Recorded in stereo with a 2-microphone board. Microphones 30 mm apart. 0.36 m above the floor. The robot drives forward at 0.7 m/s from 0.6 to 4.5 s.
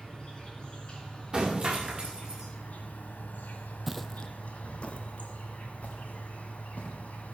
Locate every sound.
0.0 s an insect: 30° left (ahead or behind), 2.5 m; by 7.3 s 55° left (ahead or behind), 1.4 m
1.3 s breaking glass: 20° right (ahead or behind), 2.5 m; by 2.5 s 30° right (ahead or behind), 1.8 m
3.9 s footsteps: 10° right (ahead or behind), 0.5 m; by 7.0 s 45° left (ahead or behind), 3 m